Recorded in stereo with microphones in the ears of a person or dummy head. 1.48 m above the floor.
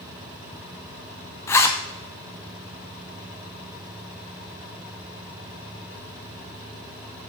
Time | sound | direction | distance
1.5 | a zipper | 15° left (ahead or behind) | 0.7 m